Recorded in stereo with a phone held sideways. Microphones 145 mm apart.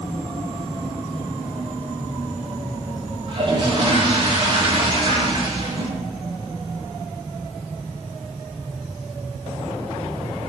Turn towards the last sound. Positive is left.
turn(degrees=-35)  # may be behind; listen again after turning